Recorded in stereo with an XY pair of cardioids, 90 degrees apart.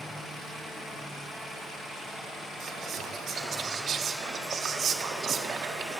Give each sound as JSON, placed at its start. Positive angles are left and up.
{"t": 2.6, "sound": "whispering", "azimuth_deg": -70, "distance_m": 0.5}